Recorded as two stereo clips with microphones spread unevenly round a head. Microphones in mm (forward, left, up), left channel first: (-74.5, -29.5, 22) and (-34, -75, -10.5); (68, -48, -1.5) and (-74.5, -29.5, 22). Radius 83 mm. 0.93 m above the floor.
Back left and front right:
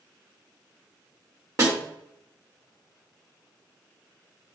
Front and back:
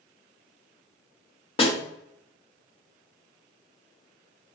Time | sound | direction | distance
1.6 | a snare drum | 55° right | 2.5 m